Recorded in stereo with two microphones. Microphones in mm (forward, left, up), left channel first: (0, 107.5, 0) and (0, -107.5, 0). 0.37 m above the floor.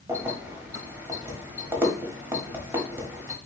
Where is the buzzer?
No buzzer in this recording.